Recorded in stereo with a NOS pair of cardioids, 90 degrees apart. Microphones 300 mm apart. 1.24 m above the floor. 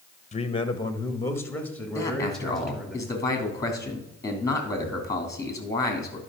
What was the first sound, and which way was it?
A man speaking, 25° left.